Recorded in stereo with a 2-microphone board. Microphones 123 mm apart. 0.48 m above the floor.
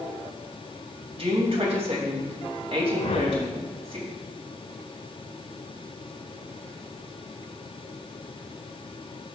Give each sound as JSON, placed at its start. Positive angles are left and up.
{"t": 1.2, "sound": "a woman speaking", "side_deg": -50, "distance_m": 3.5}
{"t": 3.0, "sound": "a whoosh", "side_deg": 55, "distance_m": 0.6}